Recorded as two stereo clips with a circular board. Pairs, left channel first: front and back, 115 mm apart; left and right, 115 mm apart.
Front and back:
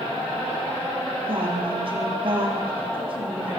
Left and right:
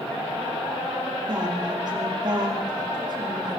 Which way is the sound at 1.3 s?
140° right.